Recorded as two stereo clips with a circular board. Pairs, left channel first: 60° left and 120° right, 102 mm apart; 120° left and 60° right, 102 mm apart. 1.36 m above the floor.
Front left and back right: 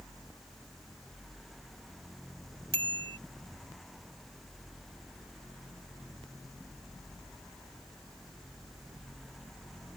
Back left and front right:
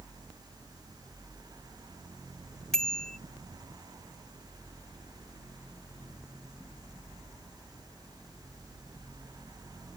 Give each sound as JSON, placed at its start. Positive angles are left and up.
{"t": 2.7, "sound": "a bicycle bell", "azimuth_deg": -155}